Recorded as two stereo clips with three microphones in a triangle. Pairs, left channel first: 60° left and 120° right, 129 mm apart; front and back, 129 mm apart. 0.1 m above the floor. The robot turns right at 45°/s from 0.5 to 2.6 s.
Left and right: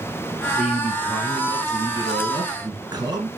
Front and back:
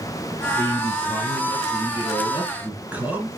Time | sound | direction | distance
0.6 | a man speaking | 155° left | 1.8 m